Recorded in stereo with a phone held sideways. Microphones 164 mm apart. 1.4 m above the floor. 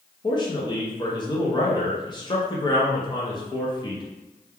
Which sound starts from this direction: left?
A man speaking, at 0.2 s.